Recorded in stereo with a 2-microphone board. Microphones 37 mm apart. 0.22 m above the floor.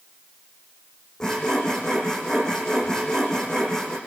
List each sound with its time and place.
1.2 s sawing: 15° left (ahead or behind), 6 m